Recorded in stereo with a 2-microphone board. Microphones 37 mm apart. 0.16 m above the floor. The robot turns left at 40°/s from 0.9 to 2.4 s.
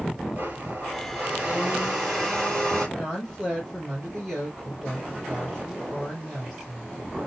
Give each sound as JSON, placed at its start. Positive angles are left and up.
{"t": 0.3, "sound": "a blender", "azimuth_deg": -125, "distance_m": 3.0}
{"t": 3.0, "sound": "a woman speaking", "side_deg": 5, "distance_m": 3.5}